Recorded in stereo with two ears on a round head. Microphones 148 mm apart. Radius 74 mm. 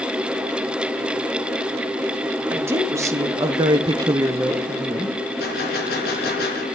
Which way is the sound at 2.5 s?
15° right (ahead or behind).